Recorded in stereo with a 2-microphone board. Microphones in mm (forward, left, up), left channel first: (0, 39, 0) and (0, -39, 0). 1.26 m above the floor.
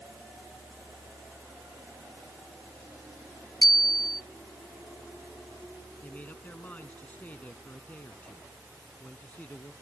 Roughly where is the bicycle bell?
Left.